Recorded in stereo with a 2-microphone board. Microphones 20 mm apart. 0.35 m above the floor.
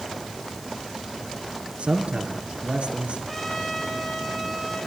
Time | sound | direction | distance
1.8 | a man speaking | 75° right (ahead or behind) | 6 m
3.3 | a trumpet | 5° left (ahead or behind) | 7 m